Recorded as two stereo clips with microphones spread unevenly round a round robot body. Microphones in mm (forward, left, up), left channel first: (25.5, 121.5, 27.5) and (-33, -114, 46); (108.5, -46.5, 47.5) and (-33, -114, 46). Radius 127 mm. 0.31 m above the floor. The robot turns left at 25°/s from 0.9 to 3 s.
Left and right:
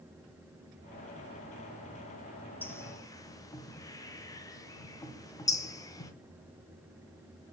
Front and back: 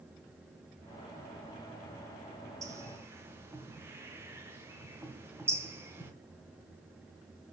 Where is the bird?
150° left, 0.9 m; by 6.1 s 140° left, 0.9 m.